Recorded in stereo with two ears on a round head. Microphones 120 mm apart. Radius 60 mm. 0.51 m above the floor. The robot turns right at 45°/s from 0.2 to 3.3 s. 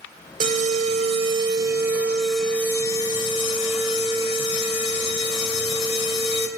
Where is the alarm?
85° right, 2 m; by 6.5 s 45° left, 2 m.